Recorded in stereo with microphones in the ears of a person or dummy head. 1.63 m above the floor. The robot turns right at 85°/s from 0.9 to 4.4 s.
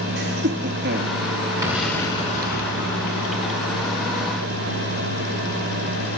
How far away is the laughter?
About 3.5 m.